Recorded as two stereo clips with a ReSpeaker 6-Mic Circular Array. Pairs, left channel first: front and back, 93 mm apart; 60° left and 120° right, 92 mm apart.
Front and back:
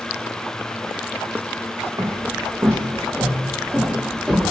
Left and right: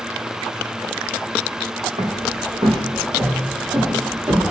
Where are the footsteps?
125° right, 0.9 m; by 4.5 s 95° right, 2 m.